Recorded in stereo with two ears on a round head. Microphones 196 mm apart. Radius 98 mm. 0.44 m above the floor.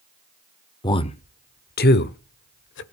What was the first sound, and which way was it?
A man speaking, 20° left (ahead or behind).